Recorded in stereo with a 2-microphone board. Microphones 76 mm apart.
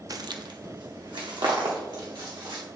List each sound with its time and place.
0.1 s footsteps: 50° right (ahead or behind), 0.5 m; by 2.6 s 75° right (ahead or behind), 3.5 m